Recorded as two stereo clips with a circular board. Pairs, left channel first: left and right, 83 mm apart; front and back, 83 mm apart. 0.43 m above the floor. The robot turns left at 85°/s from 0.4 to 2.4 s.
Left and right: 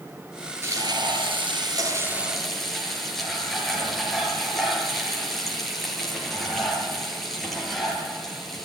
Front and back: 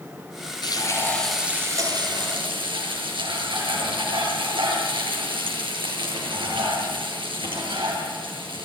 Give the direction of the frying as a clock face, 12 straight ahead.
1 o'clock.